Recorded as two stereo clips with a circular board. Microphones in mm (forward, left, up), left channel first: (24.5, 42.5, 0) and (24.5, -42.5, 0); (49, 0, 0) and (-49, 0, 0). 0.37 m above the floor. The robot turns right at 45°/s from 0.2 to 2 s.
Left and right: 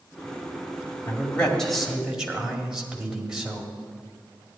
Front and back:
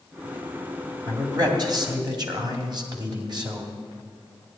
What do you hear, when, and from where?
1.1 s a man speaking: 150° left, 2 m; by 3.7 s 170° right, 2 m